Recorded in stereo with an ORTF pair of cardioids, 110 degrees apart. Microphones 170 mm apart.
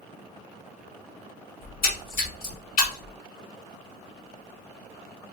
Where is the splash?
65° left, 1.7 m.